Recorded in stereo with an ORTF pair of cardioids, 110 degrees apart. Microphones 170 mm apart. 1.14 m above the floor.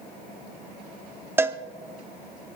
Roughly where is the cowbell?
Ahead.